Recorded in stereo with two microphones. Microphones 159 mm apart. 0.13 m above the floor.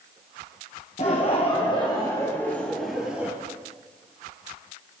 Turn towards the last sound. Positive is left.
turn(degrees=-10)  # may be behind; listen again after turning